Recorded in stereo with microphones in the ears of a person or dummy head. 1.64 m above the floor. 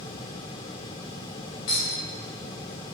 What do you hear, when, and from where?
1.7 s a clink: 25° left (ahead or behind), 0.7 m